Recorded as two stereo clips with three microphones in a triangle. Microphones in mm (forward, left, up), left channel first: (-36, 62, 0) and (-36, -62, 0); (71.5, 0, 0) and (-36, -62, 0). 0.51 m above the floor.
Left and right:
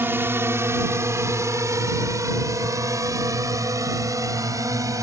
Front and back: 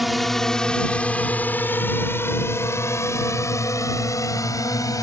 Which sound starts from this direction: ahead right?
A drone, at 0.0 s.